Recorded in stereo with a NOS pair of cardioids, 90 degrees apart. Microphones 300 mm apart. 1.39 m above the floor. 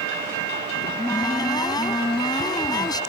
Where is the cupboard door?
15° left.